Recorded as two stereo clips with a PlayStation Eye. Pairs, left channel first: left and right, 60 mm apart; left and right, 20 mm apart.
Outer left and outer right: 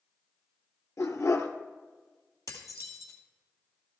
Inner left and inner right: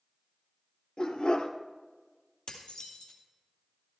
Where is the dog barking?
65° left (ahead or behind), 1.3 m.